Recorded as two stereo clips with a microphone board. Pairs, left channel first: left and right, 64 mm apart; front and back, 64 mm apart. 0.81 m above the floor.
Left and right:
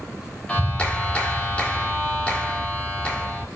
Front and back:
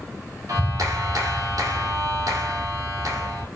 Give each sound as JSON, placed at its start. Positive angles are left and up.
{"t": 0.5, "sound": "a clap", "azimuth_deg": 160, "distance_m": 2.0}